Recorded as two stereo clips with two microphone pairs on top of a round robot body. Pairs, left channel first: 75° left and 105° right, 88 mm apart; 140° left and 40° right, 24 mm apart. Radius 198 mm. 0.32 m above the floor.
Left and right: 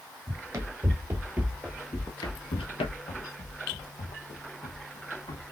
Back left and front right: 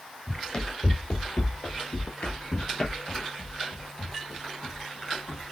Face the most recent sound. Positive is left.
turn(degrees=50)